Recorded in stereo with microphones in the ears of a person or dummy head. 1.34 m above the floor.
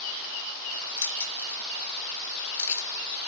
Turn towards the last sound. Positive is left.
turn(degrees=15)  # may be behind; listen again after turning